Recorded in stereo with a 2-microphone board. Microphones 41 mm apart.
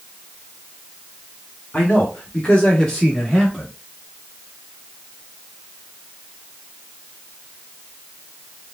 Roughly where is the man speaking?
Left.